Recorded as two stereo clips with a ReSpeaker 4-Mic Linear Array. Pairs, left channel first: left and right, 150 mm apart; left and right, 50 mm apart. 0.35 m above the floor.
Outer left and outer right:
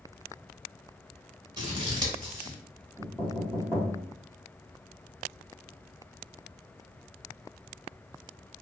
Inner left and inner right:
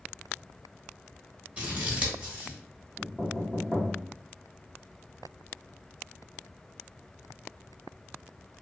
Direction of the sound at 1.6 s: 30° right (ahead or behind).